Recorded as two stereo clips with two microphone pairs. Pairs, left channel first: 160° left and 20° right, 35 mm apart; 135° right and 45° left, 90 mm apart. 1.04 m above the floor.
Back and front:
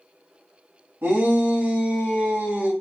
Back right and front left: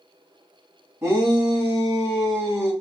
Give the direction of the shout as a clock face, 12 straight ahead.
12 o'clock.